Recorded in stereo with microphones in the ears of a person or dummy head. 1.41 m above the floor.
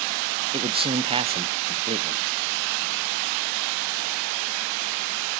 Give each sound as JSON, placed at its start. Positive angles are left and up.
{"t": 0.5, "sound": "a man speaking", "side_deg": -25, "distance_m": 0.7}